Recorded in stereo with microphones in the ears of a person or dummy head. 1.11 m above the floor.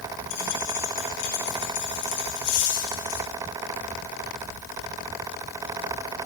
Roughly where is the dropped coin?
Left.